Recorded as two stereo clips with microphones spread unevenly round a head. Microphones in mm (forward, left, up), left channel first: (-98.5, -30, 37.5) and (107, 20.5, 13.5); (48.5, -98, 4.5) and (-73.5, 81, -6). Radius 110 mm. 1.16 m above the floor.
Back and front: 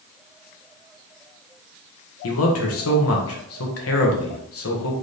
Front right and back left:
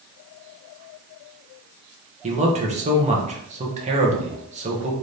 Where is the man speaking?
Straight behind, 1.4 m.